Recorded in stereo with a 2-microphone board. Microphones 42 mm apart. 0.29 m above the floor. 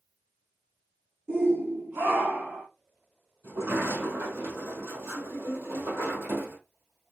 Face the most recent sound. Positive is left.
turn(degrees=-75)  # may be behind; listen again after turning